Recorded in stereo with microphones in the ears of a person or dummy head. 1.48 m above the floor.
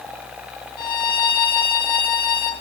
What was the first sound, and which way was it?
A violin, 20° left (ahead or behind).